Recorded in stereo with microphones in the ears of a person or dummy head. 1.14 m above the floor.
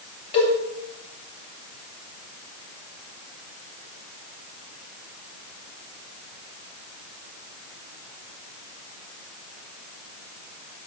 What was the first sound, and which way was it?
A cowbell, 35° left (ahead or behind).